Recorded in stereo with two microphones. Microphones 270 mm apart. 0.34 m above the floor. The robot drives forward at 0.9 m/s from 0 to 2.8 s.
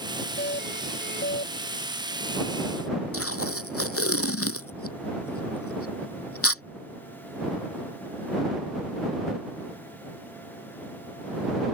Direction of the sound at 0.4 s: 40° left (ahead or behind).